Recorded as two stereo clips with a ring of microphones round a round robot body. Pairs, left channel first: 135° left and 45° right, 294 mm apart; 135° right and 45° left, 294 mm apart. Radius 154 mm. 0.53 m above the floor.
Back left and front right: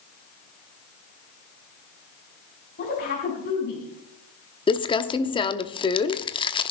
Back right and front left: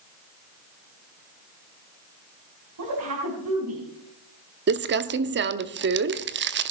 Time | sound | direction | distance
2.8 | a woman speaking | 75° left | 4.5 m
4.7 | crumpling | 70° left | 0.9 m